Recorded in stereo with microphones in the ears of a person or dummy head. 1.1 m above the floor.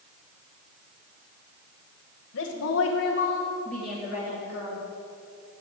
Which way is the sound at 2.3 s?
60° left (ahead or behind).